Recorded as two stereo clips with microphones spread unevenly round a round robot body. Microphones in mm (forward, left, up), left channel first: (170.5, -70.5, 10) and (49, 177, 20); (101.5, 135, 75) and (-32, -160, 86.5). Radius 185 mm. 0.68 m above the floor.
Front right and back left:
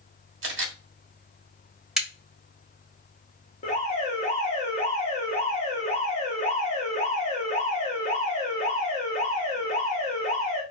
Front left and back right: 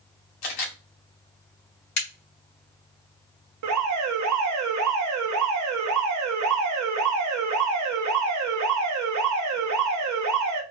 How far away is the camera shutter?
About 1.9 m.